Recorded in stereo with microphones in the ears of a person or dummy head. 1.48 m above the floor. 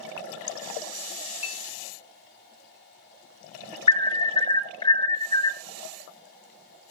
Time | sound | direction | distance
1.4 | a clink | 5° right (ahead or behind) | 2 m
3.9 | an alarm | 25° left (ahead or behind) | 1.1 m